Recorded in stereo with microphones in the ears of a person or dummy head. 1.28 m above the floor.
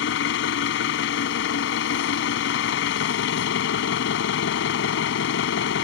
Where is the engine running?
70° left (ahead or behind).